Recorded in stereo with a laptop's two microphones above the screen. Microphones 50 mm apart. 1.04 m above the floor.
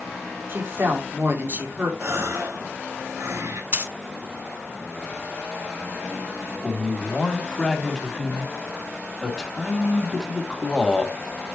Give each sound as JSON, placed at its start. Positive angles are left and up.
{"t": 0.5, "sound": "a woman speaking", "side_deg": -50, "distance_m": 2.0}
{"t": 2.0, "sound": "a gasp", "side_deg": -70, "distance_m": 1.9}
{"t": 3.7, "sound": "a dropped coin", "side_deg": -40, "distance_m": 1.6}
{"t": 6.6, "sound": "a man speaking", "side_deg": 5, "distance_m": 3.0}